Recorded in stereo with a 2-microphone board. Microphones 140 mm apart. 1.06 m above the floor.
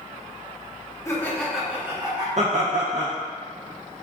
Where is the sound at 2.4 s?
55° right (ahead or behind), 0.6 m.